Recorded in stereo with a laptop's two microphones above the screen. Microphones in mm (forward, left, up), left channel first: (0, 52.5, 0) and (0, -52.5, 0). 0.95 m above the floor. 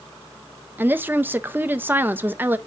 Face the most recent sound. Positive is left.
turn(degrees=-20)  # may be behind; listen again after turning